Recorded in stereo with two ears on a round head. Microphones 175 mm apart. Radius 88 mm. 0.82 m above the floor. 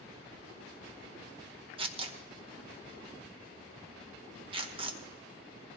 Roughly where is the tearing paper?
Right.